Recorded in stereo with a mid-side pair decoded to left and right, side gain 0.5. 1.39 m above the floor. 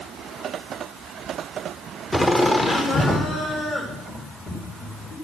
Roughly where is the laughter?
Ahead.